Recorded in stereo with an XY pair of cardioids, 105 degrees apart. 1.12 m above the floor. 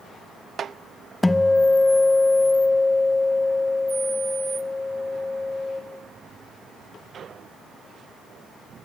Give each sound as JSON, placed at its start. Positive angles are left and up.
{"t": 1.2, "sound": "a guitar", "azimuth_deg": 15, "distance_m": 0.8}